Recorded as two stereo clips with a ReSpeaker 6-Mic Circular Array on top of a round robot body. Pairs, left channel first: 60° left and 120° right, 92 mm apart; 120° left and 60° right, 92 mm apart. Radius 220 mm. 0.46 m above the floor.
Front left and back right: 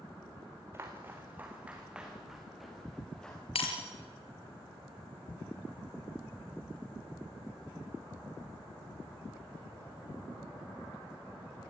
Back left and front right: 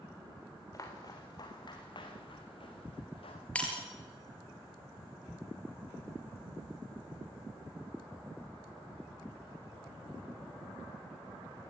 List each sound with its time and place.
0.7 s footsteps: 175° left, 3 m; by 3.5 s 140° left, 3.5 m
3.5 s breaking glass: 45° left, 4.5 m